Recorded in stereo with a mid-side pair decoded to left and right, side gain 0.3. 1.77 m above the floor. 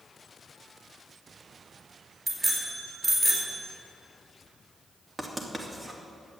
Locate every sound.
2.3 s a bicycle bell: 45° right, 5 m
5.2 s writing: 20° right, 3 m